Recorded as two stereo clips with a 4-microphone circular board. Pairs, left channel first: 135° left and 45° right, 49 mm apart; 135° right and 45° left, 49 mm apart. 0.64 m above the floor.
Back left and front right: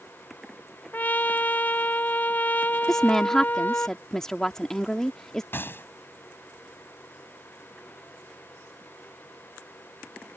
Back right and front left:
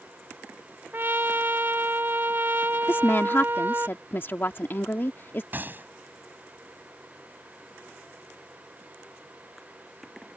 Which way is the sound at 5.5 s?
95° left.